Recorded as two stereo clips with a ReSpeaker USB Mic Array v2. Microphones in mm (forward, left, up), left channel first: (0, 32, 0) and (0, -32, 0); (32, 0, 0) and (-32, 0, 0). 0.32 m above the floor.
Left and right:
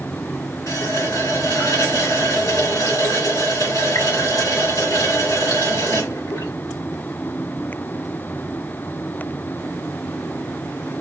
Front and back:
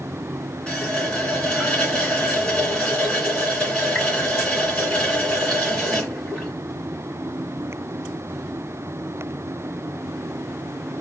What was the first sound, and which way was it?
A running tap, 70° left.